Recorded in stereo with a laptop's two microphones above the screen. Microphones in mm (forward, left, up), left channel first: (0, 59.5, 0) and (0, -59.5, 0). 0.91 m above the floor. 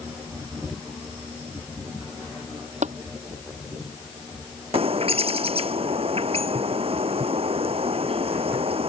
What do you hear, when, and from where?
2.8 s tapping: 80° right
4.7 s a bird: 55° right (ahead or behind)